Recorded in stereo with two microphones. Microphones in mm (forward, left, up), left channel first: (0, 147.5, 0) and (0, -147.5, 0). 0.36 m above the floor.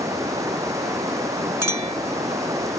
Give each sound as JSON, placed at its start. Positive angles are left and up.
{"t": 0.0, "sound": "running water", "side_deg": -10}
{"t": 1.6, "sound": "a clink", "side_deg": -75}